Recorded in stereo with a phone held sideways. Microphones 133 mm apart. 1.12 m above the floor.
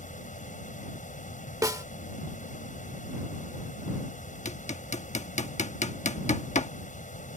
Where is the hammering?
60° left (ahead or behind).